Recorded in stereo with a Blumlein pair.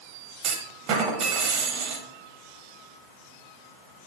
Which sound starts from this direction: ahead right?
A clunk, at 0.4 s.